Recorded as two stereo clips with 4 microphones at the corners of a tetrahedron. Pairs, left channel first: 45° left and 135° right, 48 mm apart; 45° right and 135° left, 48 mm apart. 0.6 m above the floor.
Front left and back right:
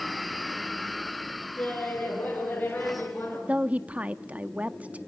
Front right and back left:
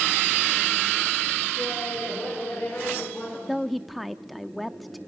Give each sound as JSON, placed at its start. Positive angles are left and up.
{"t": 1.6, "sound": "laughter", "azimuth_deg": -15, "distance_m": 7.5}
{"t": 3.5, "sound": "a woman speaking", "azimuth_deg": -130, "distance_m": 0.6}